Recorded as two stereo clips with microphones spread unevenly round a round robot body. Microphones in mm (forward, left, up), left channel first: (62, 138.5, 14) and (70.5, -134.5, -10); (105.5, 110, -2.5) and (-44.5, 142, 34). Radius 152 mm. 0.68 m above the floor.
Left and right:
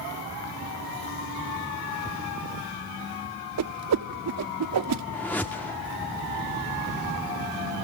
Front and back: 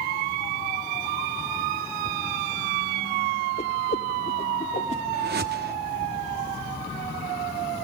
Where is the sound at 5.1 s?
Straight behind, 1.4 m.